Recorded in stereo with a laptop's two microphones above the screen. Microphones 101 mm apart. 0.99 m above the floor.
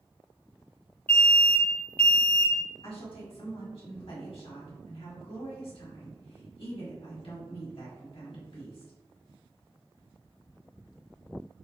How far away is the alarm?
About 1.1 m.